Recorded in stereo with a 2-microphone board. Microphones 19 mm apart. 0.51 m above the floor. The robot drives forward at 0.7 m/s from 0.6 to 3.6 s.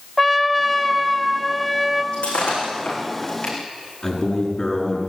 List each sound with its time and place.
0.2 s a trumpet: 5° left (ahead or behind), 1.2 m
2.1 s breaking glass: 80° left, 7.5 m; by 3.5 s 75° left (ahead or behind), 7.5 m
4.0 s a man speaking: 25° left (ahead or behind), 6 m